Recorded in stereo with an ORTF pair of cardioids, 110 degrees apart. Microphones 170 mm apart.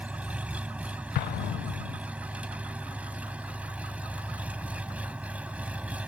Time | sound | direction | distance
0.0 | an engine running | 10° right | ?
1.1 | an explosion | 65° left | ?